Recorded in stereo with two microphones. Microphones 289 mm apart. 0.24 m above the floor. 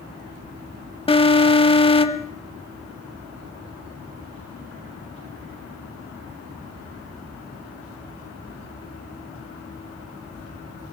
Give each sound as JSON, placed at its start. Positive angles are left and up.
{"t": 1.1, "sound": "an alarm", "side_deg": 20, "distance_m": 0.7}